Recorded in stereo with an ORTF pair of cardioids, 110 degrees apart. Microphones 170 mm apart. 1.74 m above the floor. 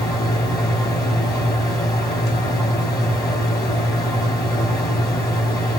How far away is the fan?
About 2.5 m.